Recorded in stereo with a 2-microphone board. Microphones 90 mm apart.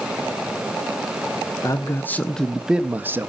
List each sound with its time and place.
1.6 s a man speaking: 35° left (ahead or behind), 0.8 m; by 3.3 s 30° right (ahead or behind), 0.9 m